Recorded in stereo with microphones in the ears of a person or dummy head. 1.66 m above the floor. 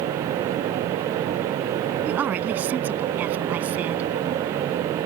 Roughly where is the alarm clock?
No alarm clock in this recording.